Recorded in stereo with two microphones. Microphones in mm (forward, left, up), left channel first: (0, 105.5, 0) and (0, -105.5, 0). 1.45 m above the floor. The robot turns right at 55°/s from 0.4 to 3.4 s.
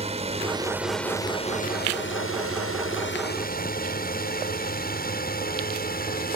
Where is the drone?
30° right (ahead or behind); by 6.4 s 45° left (ahead or behind).